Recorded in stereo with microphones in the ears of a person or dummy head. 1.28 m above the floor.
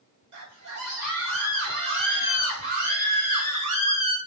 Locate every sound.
0.3 s a scream: 80° right, 5.5 m; by 4.2 s 25° right (ahead or behind), 2.5 m